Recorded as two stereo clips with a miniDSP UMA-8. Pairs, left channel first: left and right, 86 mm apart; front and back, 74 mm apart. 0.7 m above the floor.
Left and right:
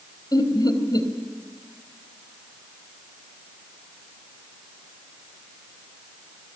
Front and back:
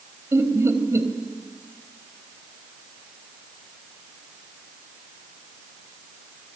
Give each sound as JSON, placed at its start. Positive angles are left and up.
{"t": 0.3, "sound": "laughter", "azimuth_deg": 130, "distance_m": 3.5}